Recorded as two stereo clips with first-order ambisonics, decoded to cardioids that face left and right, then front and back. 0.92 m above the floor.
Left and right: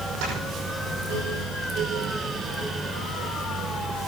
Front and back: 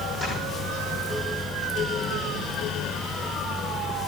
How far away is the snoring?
About 6.5 m.